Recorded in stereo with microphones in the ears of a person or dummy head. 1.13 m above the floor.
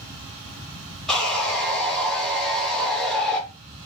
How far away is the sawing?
About 0.8 m.